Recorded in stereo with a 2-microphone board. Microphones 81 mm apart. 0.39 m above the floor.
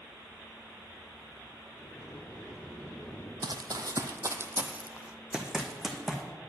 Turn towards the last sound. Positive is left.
turn(degrees=0)  # may be behind; listen again after turning